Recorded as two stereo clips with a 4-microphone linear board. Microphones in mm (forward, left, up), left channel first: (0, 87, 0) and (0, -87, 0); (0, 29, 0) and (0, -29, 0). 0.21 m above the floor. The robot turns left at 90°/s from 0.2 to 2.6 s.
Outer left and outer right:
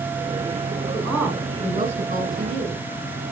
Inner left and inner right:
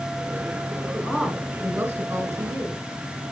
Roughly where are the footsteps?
I don't hear footsteps.